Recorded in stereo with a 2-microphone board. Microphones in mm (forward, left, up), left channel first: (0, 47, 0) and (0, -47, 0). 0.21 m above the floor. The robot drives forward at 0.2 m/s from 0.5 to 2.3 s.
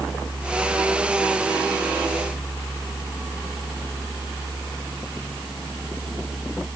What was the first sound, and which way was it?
Only background noise.